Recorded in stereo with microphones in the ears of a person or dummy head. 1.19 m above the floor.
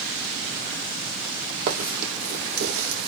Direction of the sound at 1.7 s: 45° right (ahead or behind).